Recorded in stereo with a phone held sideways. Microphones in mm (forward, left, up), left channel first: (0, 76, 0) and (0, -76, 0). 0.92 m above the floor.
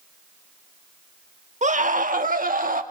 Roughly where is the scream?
Right.